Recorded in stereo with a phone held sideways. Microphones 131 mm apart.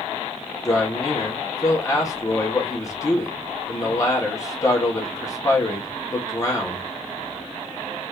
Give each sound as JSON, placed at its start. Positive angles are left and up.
{"t": 0.7, "sound": "a man speaking", "side_deg": 25, "distance_m": 1.7}